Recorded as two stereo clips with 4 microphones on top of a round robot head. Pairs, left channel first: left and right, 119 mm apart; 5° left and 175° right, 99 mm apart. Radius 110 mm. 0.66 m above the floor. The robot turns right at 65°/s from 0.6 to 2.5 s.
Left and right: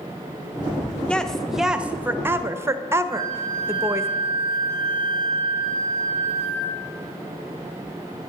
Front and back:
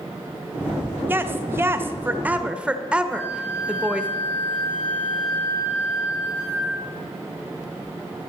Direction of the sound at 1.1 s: 155° left.